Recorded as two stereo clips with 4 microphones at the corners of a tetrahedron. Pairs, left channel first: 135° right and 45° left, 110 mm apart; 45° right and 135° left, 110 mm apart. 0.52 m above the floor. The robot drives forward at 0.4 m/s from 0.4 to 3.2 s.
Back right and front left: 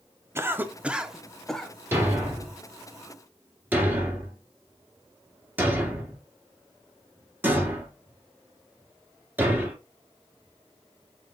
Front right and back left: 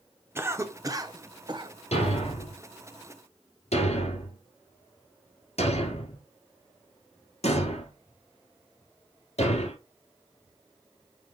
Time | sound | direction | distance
0.3 | a cough | 90° left | 0.7 m
1.9 | a thud | 25° right | 2.5 m